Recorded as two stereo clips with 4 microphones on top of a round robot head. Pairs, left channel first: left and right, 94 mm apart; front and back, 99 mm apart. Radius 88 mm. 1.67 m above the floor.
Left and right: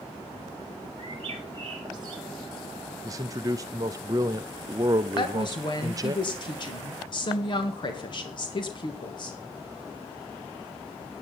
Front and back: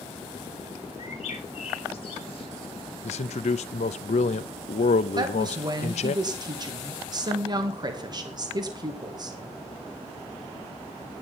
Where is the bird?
40° right, 1.1 m.